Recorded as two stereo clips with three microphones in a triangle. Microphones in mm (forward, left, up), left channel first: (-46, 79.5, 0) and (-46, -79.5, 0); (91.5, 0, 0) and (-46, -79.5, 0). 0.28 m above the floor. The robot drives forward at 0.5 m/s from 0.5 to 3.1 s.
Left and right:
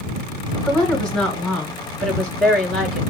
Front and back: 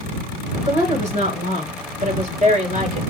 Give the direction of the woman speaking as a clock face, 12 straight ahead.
6 o'clock.